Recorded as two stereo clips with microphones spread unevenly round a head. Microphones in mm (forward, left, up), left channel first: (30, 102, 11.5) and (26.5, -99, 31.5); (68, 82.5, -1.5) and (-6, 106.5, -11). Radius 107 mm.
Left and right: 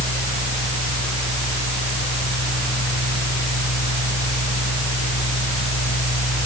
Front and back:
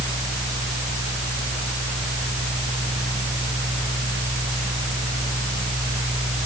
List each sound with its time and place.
0.0 s a fan: 115° left, 6 m